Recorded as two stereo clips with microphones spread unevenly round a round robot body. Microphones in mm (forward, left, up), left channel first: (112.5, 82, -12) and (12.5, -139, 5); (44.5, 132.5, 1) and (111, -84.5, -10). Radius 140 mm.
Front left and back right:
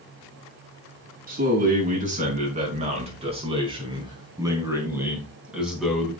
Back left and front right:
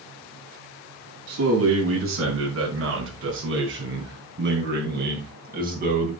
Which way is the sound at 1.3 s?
60° right.